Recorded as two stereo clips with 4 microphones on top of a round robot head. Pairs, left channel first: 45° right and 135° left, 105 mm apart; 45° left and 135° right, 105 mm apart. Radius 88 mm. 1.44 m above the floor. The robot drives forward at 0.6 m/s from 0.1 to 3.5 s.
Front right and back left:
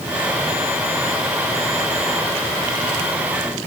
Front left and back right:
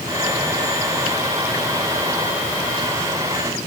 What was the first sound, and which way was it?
Only background noise.